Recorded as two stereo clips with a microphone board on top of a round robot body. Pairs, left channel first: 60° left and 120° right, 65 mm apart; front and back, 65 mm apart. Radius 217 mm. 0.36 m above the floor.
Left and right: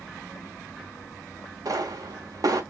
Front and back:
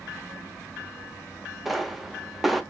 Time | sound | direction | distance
1.6 | a pop | 90° right | 0.8 m